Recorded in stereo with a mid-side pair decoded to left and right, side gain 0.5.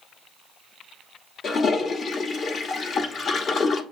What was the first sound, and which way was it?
A toilet flushing, 50° left.